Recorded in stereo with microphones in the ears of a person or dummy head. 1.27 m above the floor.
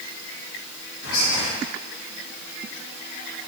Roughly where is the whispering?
Left.